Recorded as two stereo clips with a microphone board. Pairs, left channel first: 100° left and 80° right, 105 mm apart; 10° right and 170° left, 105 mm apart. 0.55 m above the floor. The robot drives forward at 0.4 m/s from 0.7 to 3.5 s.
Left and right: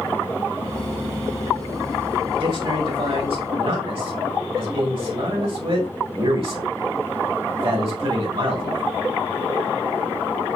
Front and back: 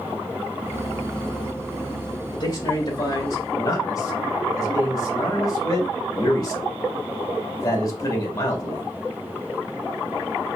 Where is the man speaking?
55° right, 2.5 m; by 8.8 s 65° right, 2.5 m.